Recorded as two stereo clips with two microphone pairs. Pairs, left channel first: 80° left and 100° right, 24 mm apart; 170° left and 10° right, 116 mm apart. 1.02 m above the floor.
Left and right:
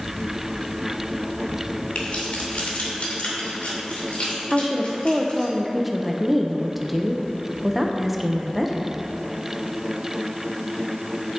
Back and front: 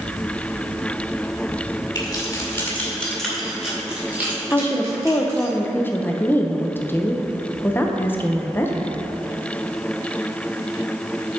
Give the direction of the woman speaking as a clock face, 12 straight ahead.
6 o'clock.